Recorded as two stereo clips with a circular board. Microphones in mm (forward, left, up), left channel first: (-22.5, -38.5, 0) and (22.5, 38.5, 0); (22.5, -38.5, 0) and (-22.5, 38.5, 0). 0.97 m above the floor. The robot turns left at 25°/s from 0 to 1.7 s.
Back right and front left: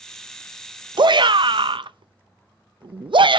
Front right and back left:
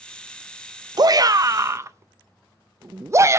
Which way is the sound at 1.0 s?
85° left.